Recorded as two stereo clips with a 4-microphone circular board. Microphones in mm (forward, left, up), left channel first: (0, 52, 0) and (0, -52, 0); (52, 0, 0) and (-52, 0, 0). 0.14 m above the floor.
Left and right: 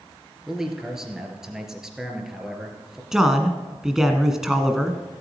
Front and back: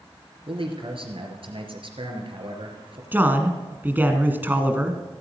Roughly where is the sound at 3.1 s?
Behind.